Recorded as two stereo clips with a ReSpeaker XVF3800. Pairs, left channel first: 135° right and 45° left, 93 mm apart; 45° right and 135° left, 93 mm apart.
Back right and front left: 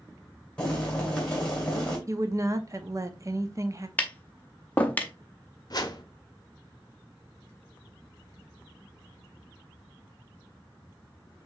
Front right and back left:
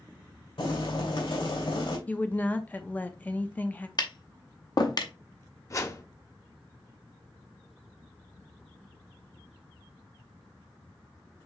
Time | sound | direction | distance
0.6 | boiling | 60° right | 2.5 m
2.1 | a woman speaking | 20° left | 0.6 m
4.0 | tapping | 65° right | 0.7 m
5.7 | a whoosh | 95° right | 0.6 m